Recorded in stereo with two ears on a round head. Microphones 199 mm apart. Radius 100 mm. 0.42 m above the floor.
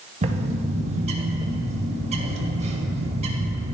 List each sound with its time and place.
0.2 s a bird: 30° right (ahead or behind), 0.6 m